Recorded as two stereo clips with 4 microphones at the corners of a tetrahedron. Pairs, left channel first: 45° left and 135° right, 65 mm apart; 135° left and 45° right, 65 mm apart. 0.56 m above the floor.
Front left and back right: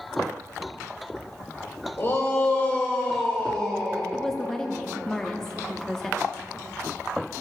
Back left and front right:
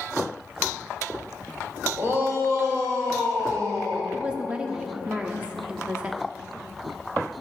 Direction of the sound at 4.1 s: 15° right.